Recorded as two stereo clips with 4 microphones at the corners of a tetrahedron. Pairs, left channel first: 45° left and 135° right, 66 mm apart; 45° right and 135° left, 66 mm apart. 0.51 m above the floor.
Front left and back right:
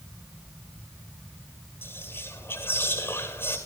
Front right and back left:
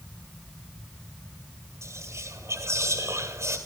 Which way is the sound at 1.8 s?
95° left.